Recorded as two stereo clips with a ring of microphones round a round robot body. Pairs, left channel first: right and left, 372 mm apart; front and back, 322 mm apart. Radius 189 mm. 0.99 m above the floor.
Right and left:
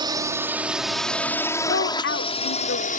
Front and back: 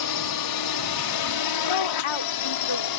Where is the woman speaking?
30° right.